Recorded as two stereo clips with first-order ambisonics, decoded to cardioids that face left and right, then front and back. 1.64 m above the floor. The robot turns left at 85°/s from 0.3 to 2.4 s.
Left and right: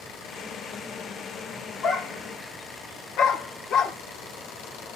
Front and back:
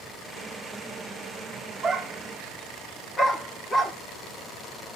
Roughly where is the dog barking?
Behind left.